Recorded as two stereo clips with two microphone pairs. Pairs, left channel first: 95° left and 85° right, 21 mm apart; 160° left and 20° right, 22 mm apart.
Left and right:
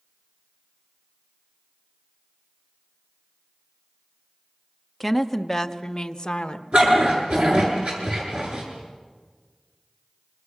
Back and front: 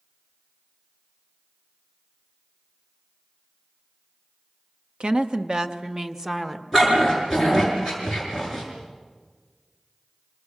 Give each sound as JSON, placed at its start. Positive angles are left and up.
{"t": 5.0, "sound": "a woman speaking", "azimuth_deg": 5, "distance_m": 1.0}
{"t": 6.7, "sound": "a dog barking", "azimuth_deg": -90, "distance_m": 7.5}